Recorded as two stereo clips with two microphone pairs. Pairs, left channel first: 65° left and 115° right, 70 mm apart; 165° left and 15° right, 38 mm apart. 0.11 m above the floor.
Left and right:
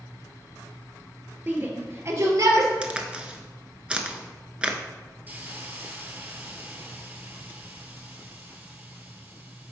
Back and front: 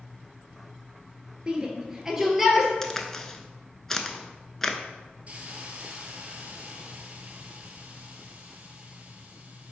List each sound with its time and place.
1.5 s a shout: 70° right, 1.4 m; by 2.7 s 105° right, 2.0 m
2.8 s a crack: 140° right, 0.7 m
5.3 s a hiss: 60° right, 1.1 m